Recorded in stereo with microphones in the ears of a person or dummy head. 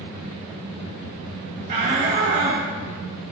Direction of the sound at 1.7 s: 30° right (ahead or behind).